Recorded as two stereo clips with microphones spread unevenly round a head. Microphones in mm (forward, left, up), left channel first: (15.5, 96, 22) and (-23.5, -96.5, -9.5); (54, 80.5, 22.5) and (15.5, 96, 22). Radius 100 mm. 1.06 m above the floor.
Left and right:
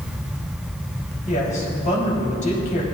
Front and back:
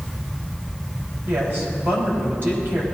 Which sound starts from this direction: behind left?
A woman speaking, at 1.3 s.